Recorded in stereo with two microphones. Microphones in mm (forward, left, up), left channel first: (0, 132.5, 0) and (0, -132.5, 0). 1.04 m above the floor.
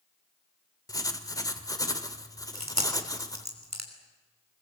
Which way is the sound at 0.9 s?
15° left (ahead or behind).